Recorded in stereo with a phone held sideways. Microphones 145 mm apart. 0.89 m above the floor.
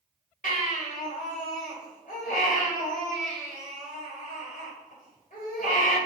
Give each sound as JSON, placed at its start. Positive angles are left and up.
{"t": 0.4, "sound": "a baby crying", "side_deg": 70, "distance_m": 1.6}